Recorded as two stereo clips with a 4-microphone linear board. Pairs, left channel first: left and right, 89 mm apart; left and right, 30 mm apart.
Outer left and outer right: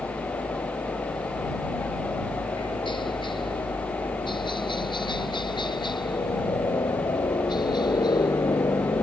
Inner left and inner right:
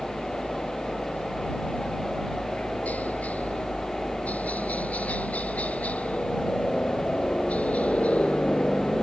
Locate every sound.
0.0 s a helicopter: 70° left (ahead or behind); by 9.0 s 50° left (ahead or behind)